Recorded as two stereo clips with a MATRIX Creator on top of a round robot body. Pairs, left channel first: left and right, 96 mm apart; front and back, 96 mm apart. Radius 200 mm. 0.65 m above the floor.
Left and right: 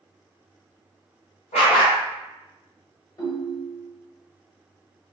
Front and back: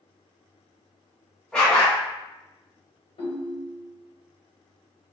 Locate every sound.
1.5 s a dog barking: 85° left, 0.8 m
3.2 s a ringtone: 35° left, 1.1 m